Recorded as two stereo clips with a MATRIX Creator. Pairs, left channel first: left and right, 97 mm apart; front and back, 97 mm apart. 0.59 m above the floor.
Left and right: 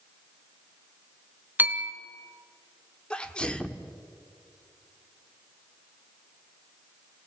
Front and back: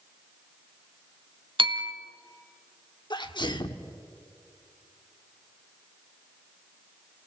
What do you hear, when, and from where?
1.6 s a bell: 160° right, 1.0 m
3.1 s a sneeze: 10° left, 1.1 m